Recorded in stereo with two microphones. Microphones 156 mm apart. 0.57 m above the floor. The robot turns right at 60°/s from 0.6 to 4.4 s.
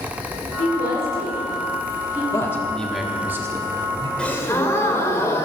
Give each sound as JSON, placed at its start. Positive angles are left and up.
{"t": 0.6, "sound": "a woman speaking", "side_deg": 65, "distance_m": 5.0}
{"t": 2.3, "sound": "a man speaking", "side_deg": 20, "distance_m": 1.2}
{"t": 4.2, "sound": "a gasp", "side_deg": 5, "distance_m": 1.3}